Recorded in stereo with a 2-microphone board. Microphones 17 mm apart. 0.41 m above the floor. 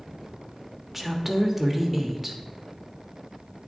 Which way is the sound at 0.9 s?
20° right (ahead or behind).